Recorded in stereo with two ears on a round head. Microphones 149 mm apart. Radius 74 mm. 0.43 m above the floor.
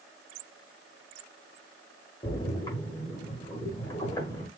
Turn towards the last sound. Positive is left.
turn(degrees=20)  # may be behind; listen again after turning